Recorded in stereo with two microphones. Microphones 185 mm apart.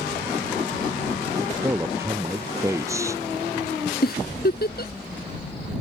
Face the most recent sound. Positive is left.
turn(degrees=55)  # may be behind; listen again after turning